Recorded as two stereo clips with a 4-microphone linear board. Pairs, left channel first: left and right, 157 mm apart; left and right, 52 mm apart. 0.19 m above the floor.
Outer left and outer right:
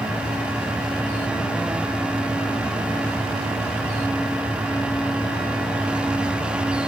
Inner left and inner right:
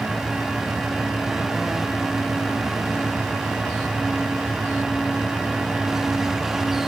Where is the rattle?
No rattle in this recording.